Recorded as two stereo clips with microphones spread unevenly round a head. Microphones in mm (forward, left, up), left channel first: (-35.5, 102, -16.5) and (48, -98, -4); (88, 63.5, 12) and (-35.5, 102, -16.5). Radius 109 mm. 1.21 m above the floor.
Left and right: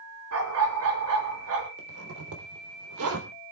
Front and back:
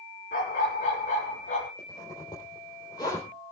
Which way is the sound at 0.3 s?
55° right.